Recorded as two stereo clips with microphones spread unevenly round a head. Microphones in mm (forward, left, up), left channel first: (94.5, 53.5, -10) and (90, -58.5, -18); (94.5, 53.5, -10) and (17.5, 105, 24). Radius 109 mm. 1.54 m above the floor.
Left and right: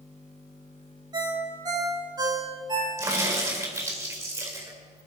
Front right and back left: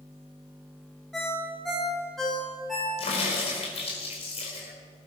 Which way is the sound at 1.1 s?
145° right.